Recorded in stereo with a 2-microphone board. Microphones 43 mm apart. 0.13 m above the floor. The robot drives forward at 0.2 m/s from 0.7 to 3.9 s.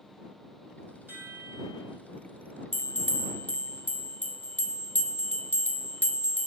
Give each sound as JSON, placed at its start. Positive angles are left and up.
{"t": 1.1, "sound": "a chime", "side_deg": -50, "distance_m": 5.0}
{"t": 2.7, "sound": "a bell", "side_deg": 50, "distance_m": 0.7}